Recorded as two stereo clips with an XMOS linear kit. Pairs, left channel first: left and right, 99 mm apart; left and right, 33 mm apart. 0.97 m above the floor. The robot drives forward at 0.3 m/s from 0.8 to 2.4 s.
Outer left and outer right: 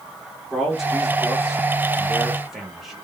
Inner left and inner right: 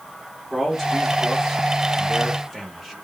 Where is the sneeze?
No sneeze in this recording.